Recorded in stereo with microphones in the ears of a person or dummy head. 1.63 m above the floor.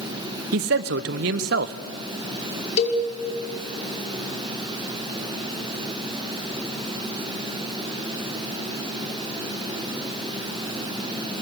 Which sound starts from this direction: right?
A man speaking, at 0.5 s.